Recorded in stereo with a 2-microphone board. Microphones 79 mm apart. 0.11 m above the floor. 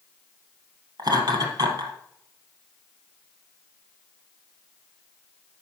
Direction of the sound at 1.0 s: 60° right (ahead or behind).